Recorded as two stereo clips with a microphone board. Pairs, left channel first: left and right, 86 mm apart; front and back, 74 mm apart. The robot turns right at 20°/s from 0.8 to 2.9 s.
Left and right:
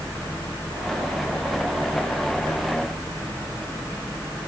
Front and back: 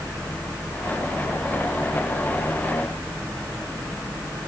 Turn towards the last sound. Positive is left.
No sound to turn to.